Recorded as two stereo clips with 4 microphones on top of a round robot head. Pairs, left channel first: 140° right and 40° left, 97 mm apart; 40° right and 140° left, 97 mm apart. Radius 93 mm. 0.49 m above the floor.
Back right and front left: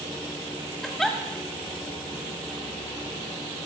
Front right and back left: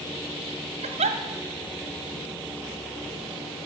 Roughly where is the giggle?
Behind left.